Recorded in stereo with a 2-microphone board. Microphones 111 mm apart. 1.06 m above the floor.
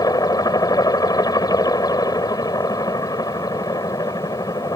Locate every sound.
0.0 s a helicopter: 35° left (ahead or behind)